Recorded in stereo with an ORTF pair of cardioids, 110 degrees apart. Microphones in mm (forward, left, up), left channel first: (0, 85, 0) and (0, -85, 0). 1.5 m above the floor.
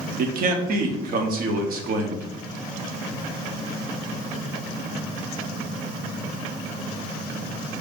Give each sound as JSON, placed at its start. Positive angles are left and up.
{"t": 0.2, "sound": "a man speaking", "azimuth_deg": -65, "distance_m": 1.0}